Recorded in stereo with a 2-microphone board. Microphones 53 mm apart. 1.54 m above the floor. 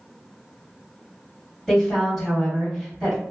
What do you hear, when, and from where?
1.7 s a woman speaking: centre (ahead or behind), 1.4 m